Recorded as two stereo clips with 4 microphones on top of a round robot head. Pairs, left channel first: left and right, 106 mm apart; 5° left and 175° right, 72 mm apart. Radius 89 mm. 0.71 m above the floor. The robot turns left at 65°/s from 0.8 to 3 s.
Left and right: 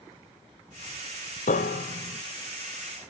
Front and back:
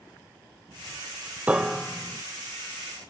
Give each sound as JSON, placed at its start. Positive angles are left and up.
{"t": 1.5, "sound": "a piano", "azimuth_deg": 115, "distance_m": 1.1}